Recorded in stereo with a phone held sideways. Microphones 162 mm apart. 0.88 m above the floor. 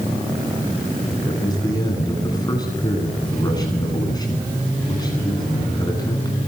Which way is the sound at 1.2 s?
25° left (ahead or behind).